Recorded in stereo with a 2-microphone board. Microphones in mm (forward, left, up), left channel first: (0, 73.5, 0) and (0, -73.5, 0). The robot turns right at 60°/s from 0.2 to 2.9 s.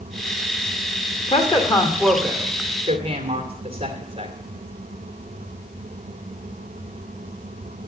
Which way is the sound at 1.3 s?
55° left (ahead or behind).